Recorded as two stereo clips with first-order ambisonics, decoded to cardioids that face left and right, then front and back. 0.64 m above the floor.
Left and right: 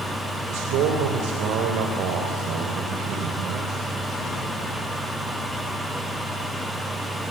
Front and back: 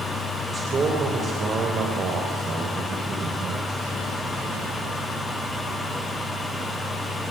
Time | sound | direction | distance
0.5 | a man speaking | 110° right | 2.5 m